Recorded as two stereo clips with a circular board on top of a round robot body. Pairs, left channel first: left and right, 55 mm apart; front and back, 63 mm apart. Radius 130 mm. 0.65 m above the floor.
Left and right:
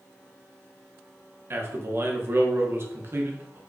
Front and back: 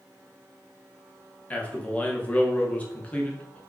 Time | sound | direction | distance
1.5 | a man speaking | 65° right | 1.4 m